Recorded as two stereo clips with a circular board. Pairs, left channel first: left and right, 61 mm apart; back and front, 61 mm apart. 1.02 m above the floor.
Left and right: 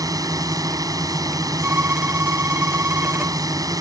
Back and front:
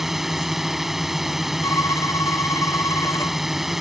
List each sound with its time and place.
0.0 s a drone: 85° right
1.6 s a violin: 145° right